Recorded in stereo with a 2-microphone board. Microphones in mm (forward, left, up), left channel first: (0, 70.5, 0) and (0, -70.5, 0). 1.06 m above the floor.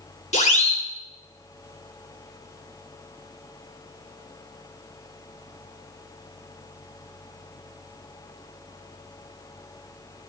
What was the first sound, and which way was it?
A siren, 55° left (ahead or behind).